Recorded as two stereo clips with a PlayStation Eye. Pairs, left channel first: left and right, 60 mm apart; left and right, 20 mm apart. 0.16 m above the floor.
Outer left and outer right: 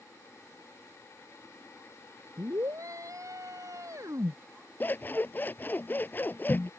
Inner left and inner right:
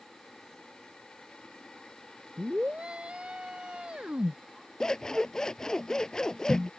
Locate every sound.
2.4 s a scream: 60° right (ahead or behind)
4.8 s scissors: 35° left (ahead or behind)